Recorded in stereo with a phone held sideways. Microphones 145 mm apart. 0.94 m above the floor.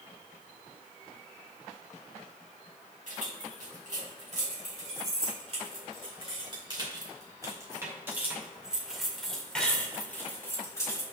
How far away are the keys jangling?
About 3.5 m.